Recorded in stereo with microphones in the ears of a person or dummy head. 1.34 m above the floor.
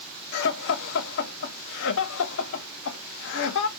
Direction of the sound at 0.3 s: 65° left (ahead or behind).